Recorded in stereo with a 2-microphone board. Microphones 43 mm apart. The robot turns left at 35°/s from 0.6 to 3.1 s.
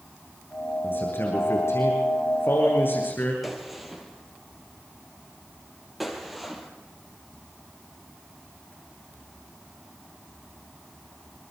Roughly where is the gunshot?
Centre.